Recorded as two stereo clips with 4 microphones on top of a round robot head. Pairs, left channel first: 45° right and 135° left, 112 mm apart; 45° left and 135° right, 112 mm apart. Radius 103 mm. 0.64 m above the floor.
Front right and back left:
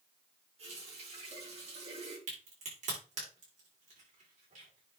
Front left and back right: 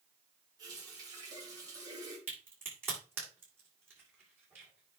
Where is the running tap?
165° left, 5 m.